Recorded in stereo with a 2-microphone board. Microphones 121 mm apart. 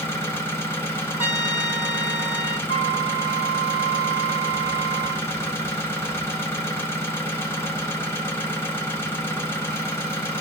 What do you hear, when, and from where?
0.0 s an engine running: 20° left (ahead or behind), 1.2 m
1.2 s a trumpet: 15° right (ahead or behind), 1.6 m
2.7 s a flute: 55° left (ahead or behind), 0.8 m